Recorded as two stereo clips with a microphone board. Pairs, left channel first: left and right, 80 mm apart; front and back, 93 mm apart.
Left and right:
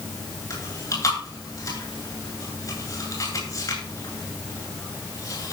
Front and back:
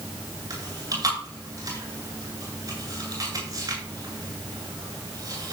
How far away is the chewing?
About 9 m.